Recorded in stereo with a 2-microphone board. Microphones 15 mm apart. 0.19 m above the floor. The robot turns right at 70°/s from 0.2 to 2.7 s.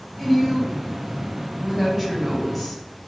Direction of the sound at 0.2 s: 10° right (ahead or behind).